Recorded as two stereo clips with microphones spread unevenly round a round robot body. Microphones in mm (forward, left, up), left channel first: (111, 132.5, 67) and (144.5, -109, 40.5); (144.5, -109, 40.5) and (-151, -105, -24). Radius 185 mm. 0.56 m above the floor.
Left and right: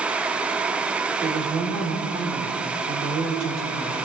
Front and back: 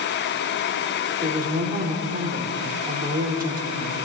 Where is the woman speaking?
135° right, 1.9 m.